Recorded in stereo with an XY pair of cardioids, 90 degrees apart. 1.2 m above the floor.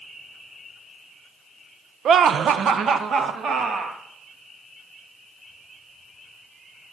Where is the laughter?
65° right, 0.5 m; by 4.0 s 60° right, 1.5 m.